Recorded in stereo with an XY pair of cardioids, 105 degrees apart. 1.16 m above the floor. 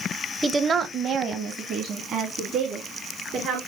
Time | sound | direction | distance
0.4 | a woman speaking | 15° right | 0.5 m